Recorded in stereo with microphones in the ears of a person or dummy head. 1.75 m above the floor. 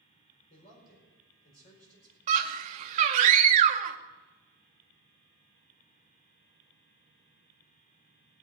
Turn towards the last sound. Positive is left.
turn(degrees=-35)  # may be behind; listen again after turning